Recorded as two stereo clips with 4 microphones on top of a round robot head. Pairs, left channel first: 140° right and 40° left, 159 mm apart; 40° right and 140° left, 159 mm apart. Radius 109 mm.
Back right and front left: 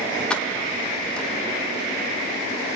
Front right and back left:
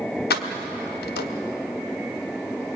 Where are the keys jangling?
55° right, 1.4 m.